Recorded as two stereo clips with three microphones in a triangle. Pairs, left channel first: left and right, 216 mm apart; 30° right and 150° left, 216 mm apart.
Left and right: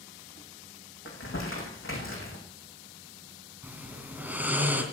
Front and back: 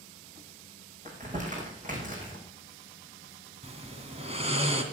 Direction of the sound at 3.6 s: 165° right.